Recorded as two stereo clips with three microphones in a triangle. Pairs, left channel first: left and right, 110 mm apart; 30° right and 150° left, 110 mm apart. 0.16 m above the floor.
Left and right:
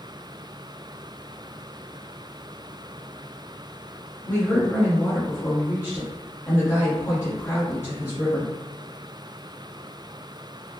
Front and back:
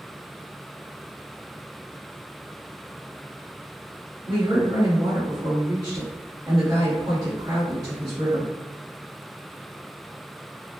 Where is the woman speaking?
140° left, 2.0 m.